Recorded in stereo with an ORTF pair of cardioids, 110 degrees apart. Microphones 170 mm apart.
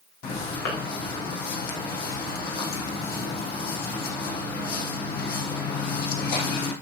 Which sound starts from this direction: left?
Footsteps, at 0.2 s.